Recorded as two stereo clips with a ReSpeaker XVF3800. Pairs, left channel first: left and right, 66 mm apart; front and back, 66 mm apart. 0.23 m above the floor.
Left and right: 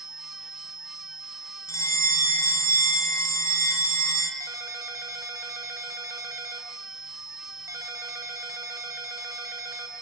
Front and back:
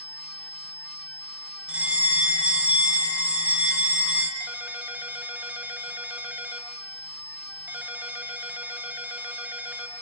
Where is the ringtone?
120° right, 1.9 m.